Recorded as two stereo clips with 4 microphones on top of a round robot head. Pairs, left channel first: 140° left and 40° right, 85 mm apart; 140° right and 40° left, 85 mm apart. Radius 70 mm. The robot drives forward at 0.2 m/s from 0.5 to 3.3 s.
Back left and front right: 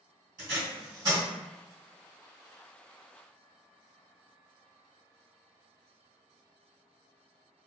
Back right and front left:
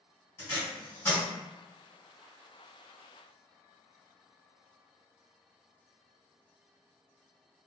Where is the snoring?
No snoring in this recording.